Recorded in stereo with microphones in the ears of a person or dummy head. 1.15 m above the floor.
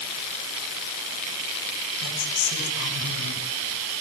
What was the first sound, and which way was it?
A woman speaking, 65° left (ahead or behind).